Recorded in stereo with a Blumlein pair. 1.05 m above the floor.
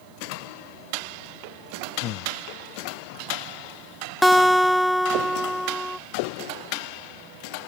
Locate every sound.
2.0 s breathing: 35° left
4.2 s a guitar: straight ahead